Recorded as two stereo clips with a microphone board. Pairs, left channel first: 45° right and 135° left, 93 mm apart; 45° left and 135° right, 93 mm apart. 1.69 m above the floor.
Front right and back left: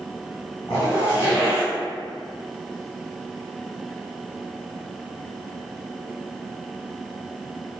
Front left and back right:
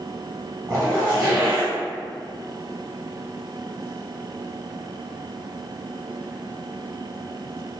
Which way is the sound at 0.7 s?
85° right.